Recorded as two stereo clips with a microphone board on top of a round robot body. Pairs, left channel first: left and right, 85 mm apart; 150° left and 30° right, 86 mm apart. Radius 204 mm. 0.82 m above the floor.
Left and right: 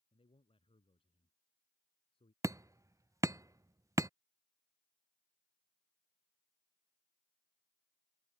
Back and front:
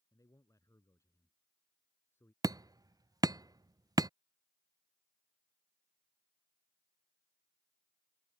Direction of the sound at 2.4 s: 50° right.